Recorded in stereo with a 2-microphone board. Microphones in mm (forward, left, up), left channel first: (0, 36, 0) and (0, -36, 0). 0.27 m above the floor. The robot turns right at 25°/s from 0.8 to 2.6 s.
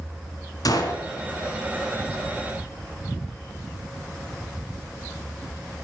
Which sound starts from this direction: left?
A gunshot, at 0.7 s.